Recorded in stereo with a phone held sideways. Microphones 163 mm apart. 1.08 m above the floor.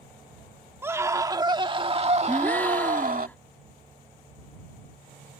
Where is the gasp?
10° left (ahead or behind).